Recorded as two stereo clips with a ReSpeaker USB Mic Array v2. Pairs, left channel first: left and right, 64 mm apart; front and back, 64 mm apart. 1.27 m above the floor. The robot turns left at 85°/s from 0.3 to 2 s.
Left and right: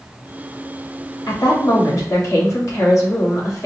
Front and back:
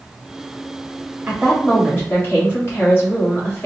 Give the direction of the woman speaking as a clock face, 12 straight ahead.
8 o'clock.